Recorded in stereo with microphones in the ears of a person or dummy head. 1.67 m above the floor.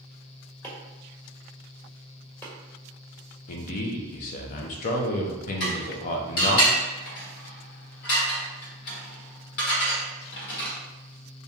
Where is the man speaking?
50° left (ahead or behind), 0.6 m.